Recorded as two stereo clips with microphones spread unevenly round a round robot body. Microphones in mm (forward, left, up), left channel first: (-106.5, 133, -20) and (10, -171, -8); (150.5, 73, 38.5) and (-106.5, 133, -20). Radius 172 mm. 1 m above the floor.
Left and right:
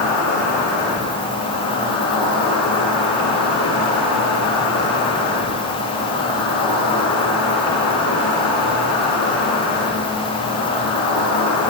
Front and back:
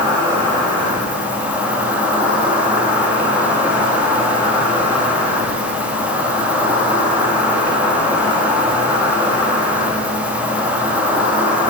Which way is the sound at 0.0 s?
85° left.